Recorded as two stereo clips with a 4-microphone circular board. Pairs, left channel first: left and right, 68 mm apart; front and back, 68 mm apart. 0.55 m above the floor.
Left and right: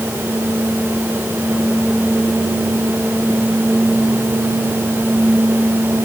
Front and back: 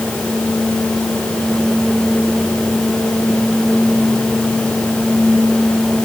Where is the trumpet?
No trumpet in this recording.